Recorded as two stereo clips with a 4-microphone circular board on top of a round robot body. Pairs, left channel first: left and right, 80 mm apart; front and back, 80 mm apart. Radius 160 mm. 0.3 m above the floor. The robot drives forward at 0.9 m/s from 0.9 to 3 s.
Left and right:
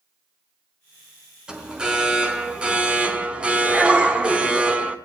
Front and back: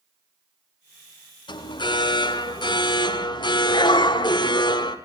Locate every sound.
1.5 s an alarm: 10° right, 5 m; by 5.0 s 15° right, 4 m